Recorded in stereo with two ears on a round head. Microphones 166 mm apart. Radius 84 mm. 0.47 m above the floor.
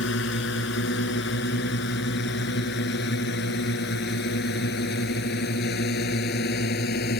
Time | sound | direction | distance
0.0 | a drone | 70° left (ahead or behind) | ?